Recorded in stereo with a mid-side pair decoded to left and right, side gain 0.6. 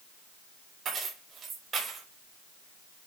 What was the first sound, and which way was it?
Keys jangling, 35° right.